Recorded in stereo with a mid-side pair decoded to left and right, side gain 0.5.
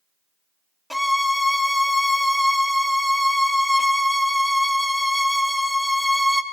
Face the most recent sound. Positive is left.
turn(degrees=5)